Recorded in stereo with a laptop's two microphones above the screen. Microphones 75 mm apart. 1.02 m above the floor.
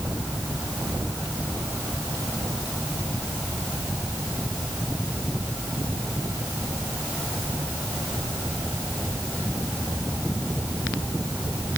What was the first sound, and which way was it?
Only background noise.